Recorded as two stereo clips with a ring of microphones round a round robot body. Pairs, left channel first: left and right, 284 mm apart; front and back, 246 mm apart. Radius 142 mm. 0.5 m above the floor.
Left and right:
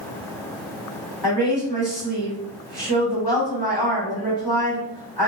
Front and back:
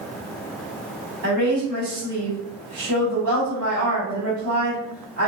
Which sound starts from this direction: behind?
A woman speaking, at 1.2 s.